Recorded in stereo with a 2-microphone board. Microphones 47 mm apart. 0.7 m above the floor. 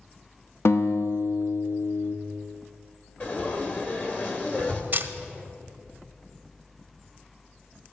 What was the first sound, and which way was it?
A guitar, 60° left (ahead or behind).